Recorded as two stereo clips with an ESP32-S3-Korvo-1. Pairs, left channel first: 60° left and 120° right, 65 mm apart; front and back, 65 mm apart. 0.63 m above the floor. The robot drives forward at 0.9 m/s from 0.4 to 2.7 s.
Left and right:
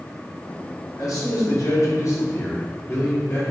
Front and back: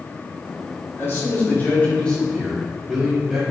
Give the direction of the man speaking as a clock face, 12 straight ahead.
10 o'clock.